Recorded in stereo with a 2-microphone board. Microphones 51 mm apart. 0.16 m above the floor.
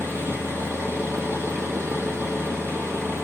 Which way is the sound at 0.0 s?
60° right (ahead or behind).